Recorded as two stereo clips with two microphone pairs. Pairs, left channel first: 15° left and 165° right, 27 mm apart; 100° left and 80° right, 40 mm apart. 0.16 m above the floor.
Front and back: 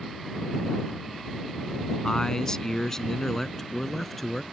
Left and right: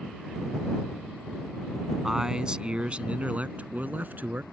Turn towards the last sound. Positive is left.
turn(degrees=-70)